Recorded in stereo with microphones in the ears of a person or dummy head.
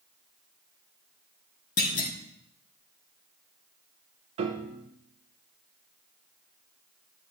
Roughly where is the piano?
Right.